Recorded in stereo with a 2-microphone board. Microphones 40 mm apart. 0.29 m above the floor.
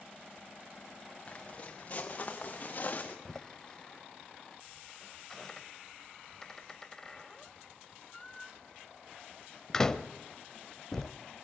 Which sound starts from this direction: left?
Footsteps, at 1.3 s.